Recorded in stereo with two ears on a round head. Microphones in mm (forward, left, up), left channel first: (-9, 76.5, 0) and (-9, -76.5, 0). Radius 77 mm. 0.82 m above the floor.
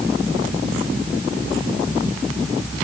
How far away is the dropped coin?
No dropped coin in this recording.